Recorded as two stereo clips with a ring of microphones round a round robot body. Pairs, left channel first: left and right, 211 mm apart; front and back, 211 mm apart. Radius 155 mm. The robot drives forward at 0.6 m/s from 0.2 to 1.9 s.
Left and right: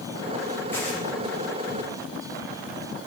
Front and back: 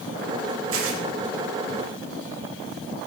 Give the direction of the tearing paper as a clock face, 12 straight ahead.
6 o'clock.